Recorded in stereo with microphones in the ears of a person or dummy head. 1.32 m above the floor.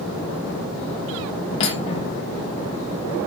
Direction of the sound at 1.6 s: 30° left (ahead or behind).